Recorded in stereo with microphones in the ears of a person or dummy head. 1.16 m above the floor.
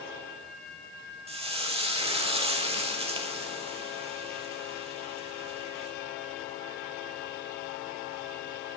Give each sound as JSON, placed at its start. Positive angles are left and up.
{"t": 1.3, "sound": "frying", "side_deg": -30, "distance_m": 1.2}